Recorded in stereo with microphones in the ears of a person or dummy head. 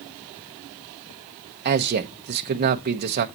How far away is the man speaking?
About 1.3 m.